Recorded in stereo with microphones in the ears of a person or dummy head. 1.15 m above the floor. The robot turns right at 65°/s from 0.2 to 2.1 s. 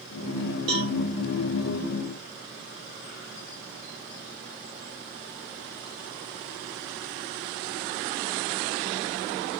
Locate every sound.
0.7 s a cowbell: 35° right (ahead or behind), 0.6 m; by 0.9 s 40° right (ahead or behind), 0.6 m